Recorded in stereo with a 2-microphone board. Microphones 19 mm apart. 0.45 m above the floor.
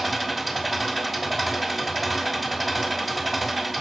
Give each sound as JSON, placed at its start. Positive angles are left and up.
{"t": 0.0, "sound": "an engine running", "side_deg": 5, "distance_m": 2.0}